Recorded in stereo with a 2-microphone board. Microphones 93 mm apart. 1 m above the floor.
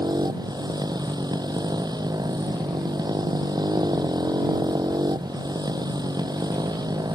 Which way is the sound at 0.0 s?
45° right (ahead or behind).